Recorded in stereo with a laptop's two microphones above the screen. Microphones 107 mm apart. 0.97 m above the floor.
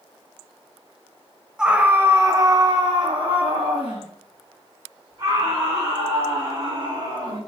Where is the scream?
5° right (ahead or behind), 1.0 m; by 7.4 s 50° right (ahead or behind), 3.5 m.